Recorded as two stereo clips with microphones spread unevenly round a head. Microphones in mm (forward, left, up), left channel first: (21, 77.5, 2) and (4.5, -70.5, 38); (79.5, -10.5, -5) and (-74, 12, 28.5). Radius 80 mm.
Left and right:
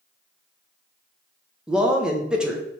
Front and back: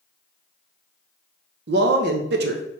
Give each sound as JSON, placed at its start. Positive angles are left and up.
{"t": 1.7, "sound": "a man speaking", "azimuth_deg": 170, "distance_m": 0.7}